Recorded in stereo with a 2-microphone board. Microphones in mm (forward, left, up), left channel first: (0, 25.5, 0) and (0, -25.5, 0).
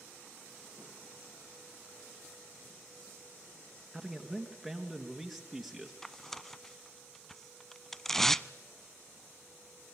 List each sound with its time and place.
3.9 s a man speaking: 5° left (ahead or behind), 2.5 m
6.0 s tearing paper: 5° left (ahead or behind), 0.5 m